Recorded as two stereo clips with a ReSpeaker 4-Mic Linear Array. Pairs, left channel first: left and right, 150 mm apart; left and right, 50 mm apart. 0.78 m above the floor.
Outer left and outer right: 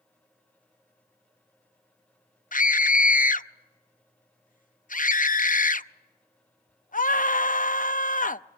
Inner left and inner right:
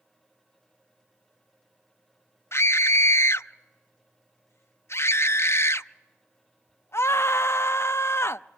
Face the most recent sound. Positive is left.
turn(degrees=55)  # may be behind; listen again after turning